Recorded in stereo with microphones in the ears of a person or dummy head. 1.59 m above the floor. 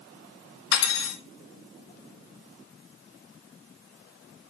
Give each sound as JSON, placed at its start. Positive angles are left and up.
{"t": 0.7, "sound": "cutlery clinking", "side_deg": 65, "distance_m": 1.9}